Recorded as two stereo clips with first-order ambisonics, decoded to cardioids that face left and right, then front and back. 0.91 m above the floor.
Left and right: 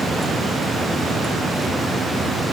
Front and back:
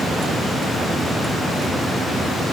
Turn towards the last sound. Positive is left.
No sound to turn to.